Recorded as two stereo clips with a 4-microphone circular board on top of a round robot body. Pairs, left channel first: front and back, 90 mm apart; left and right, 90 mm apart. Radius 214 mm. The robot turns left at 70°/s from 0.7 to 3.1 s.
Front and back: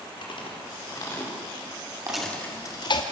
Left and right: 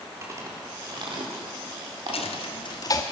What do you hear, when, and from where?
0.2 s chewing: 30° right, 4.5 m; by 2.4 s 145° right, 4.5 m
2.1 s a dropped coin: 95° left, 1.3 m; by 3.0 s 30° left, 1.3 m